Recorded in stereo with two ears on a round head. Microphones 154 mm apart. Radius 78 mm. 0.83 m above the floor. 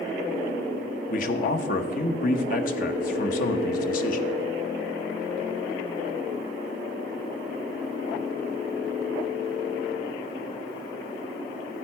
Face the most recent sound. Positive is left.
turn(degrees=55)  # may be behind; listen again after turning